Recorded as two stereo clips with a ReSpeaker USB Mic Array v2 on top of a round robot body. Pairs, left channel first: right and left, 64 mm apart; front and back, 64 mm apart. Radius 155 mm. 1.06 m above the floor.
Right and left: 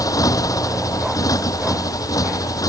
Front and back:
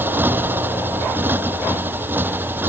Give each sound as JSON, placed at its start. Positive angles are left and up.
{"t": 0.0, "sound": "a motorcycle", "azimuth_deg": -120}